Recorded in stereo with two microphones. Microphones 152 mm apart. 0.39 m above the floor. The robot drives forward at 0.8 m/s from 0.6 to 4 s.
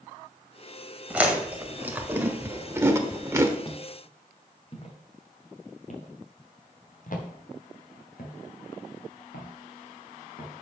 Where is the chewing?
10° right (ahead or behind), 2 m; by 3.5 s 15° right (ahead or behind), 1.1 m.